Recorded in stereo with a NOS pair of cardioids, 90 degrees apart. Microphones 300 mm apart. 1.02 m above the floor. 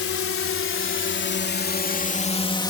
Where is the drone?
50° left; by 2.7 s 15° left.